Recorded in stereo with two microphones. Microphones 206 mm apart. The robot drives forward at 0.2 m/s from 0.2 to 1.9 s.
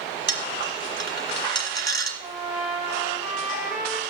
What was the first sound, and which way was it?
A dropped coin, 60° right (ahead or behind).